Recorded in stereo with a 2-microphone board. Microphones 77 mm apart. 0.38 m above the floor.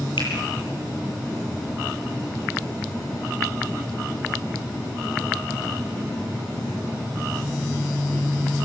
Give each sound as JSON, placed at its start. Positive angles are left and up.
{"t": 0.2, "sound": "a finger snap", "side_deg": 80, "distance_m": 9.0}